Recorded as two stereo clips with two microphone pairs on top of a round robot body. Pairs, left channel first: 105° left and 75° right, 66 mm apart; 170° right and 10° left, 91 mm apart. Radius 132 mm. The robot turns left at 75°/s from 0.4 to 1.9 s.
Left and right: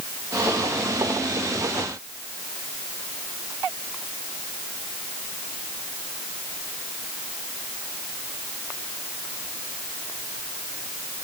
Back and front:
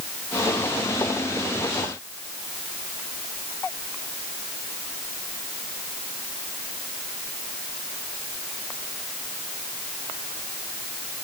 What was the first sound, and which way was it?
Only background noise.